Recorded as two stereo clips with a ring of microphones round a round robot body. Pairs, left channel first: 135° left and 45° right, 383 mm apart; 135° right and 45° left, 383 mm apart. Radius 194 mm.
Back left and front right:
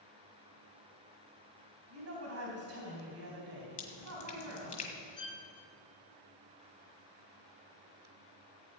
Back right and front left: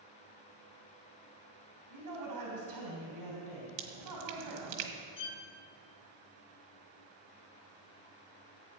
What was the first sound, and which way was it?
A woman speaking, 5° left.